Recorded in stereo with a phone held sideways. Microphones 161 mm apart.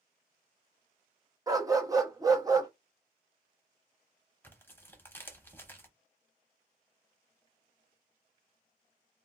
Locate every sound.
1.5 s a dog barking: 20° right (ahead or behind), 0.6 m
4.4 s tearing paper: 15° left (ahead or behind), 0.7 m